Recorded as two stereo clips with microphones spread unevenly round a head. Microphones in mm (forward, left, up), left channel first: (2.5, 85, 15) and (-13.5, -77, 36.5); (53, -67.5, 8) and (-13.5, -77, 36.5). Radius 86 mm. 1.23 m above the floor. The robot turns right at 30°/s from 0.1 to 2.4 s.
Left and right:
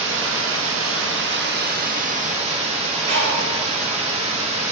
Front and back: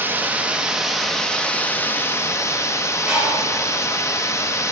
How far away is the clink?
No clink in this recording.